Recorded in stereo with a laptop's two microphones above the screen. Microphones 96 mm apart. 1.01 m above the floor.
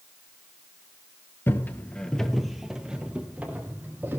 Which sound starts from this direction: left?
Footsteps, at 1.5 s.